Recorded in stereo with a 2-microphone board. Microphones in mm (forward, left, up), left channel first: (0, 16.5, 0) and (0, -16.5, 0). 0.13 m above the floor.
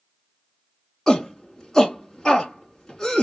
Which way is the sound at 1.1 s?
15° left (ahead or behind).